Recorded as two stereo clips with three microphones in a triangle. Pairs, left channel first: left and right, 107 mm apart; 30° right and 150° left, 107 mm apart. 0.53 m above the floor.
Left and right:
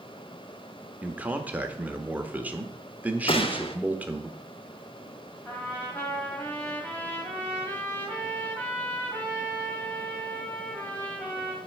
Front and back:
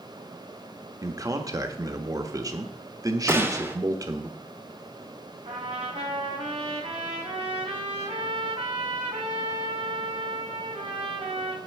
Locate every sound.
1.0 s a man speaking: 160° right, 1.0 m
3.3 s a gunshot: 85° left, 1.0 m
5.5 s a trumpet: 155° left, 2.5 m